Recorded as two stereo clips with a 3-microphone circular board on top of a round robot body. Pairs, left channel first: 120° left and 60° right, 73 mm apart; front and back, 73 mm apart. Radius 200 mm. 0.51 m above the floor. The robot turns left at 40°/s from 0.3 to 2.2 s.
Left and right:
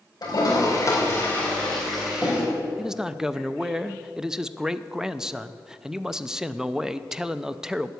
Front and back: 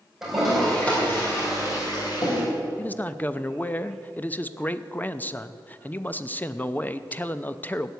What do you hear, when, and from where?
0.2 s a toilet flushing: 95° left, 4.5 m; by 2.4 s 20° left, 4.5 m
2.8 s a man speaking: 10° left, 0.8 m